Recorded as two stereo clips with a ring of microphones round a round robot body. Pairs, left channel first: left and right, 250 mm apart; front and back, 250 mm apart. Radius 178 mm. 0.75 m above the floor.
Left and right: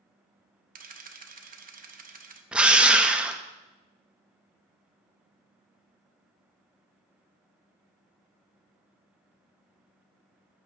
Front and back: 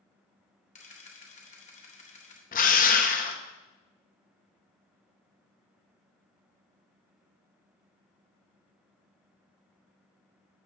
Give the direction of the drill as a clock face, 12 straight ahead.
12 o'clock.